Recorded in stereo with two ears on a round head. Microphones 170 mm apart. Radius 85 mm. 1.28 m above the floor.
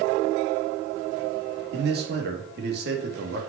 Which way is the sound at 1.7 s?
55° right (ahead or behind).